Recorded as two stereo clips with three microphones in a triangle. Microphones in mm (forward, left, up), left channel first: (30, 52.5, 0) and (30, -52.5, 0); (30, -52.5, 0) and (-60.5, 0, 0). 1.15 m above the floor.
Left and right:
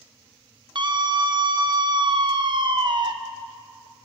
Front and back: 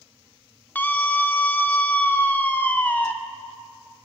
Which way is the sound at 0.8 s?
100° right.